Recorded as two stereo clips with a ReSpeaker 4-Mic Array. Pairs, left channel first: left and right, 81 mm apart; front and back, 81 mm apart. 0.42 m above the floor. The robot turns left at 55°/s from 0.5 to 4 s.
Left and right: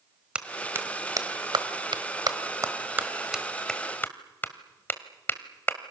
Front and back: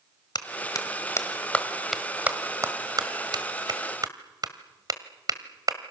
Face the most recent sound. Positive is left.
turn(degrees=150)